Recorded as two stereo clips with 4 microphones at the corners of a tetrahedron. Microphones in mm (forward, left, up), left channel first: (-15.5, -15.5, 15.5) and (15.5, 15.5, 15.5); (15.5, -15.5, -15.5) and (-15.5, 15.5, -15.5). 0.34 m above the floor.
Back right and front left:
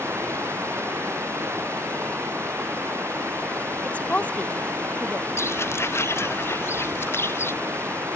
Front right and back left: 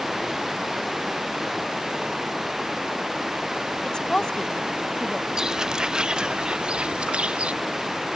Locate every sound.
0.0 s running water: 45° left
3.8 s a woman speaking: 105° right
5.4 s footsteps: 150° right; by 7.5 s 160° right